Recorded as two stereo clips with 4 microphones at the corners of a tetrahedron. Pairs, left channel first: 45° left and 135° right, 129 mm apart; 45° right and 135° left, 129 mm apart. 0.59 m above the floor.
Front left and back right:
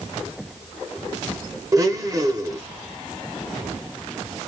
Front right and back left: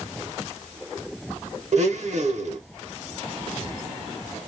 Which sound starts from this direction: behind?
A blender, at 1.7 s.